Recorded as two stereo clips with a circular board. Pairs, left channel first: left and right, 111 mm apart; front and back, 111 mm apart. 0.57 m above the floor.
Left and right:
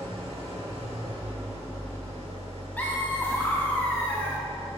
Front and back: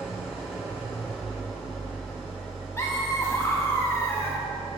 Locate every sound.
0.0 s an engine running: 80° right, 2 m
2.8 s laughter: 30° left, 0.8 m